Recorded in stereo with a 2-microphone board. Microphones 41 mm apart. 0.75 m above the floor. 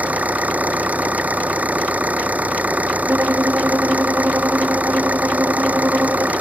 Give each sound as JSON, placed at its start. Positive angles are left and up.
{"t": 0.0, "sound": "an engine running", "side_deg": -40}
{"t": 3.1, "sound": "a violin", "side_deg": -80}